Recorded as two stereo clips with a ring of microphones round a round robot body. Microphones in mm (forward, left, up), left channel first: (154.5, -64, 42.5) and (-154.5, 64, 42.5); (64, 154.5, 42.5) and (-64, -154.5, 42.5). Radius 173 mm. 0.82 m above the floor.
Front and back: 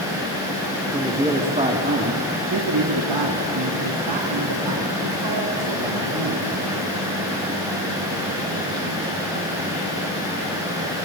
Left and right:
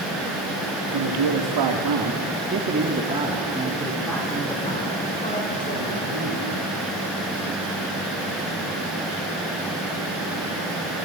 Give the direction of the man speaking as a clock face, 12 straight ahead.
4 o'clock.